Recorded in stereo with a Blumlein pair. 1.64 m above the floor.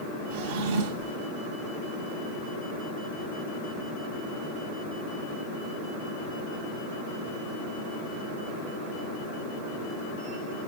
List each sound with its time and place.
0.3 s a drawer: 45° right, 2.5 m